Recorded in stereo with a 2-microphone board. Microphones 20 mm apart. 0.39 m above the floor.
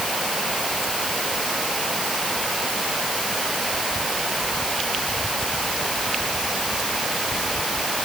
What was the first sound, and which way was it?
Only background noise.